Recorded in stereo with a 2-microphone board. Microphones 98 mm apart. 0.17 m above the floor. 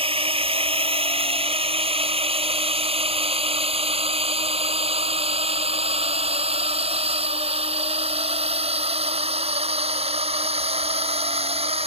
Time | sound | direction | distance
0.0 | a drone | 65° right (ahead or behind) | ?